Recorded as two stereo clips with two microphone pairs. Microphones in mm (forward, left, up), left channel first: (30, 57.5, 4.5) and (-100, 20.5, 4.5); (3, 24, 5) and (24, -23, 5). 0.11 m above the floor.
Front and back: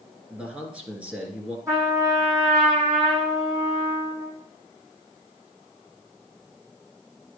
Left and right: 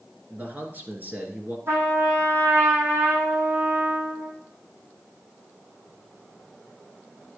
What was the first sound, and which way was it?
A man speaking, 90° right.